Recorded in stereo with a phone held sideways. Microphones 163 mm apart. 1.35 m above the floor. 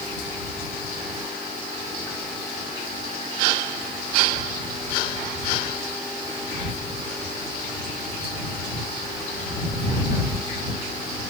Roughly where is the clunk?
No clunk in this recording.